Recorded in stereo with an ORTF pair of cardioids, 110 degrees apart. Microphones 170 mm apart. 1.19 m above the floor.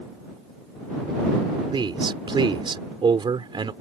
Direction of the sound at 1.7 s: 30° right.